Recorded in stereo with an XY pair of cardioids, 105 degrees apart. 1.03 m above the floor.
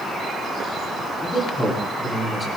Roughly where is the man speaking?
Ahead.